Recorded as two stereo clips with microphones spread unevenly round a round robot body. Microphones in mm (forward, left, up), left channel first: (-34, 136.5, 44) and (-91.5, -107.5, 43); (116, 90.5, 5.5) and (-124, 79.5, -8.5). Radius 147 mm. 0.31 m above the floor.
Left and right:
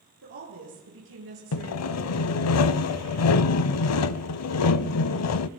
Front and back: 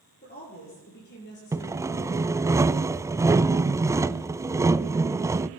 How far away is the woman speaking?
About 8.5 m.